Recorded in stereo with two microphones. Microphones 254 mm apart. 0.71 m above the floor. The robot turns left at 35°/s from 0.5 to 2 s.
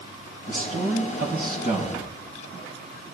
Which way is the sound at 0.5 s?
110° right.